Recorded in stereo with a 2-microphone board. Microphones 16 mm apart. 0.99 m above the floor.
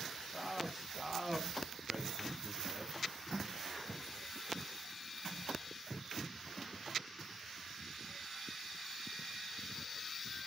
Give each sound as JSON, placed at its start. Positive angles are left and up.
{"t": 0.3, "sound": "a man speaking", "side_deg": -30, "distance_m": 8.5}